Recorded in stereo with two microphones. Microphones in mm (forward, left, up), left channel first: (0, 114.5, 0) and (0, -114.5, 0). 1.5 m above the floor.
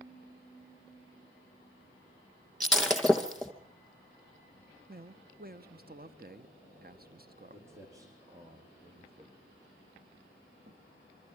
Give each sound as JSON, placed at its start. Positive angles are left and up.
{"t": 2.6, "sound": "breaking glass", "side_deg": 0, "distance_m": 2.0}
{"t": 4.9, "sound": "a man speaking", "side_deg": -40, "distance_m": 0.9}
{"t": 7.5, "sound": "footsteps", "side_deg": -10, "distance_m": 5.5}